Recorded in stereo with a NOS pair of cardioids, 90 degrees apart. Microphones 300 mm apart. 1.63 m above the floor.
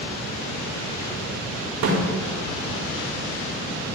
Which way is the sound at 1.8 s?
65° right.